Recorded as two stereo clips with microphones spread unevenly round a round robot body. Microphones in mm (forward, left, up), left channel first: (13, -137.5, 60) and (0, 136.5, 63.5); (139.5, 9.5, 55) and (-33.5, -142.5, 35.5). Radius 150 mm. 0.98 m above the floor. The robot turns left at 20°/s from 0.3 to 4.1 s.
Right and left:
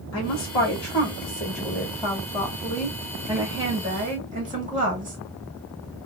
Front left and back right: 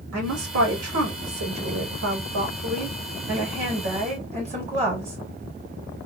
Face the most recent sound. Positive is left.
turn(degrees=155)